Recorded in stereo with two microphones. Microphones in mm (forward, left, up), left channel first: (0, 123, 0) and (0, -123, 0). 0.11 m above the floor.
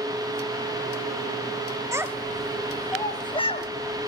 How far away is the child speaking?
About 1.5 m.